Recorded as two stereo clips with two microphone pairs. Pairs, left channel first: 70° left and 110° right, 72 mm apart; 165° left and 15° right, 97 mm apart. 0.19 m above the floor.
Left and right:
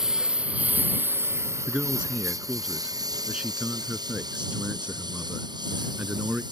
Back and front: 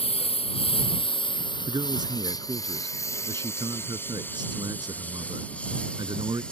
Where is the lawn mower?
170° left; by 6.5 s 115° right.